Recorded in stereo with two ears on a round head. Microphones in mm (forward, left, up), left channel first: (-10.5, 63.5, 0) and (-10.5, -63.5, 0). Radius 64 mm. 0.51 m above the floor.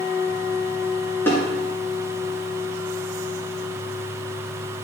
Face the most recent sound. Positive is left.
turn(degrees=15)  # may be behind; listen again after turning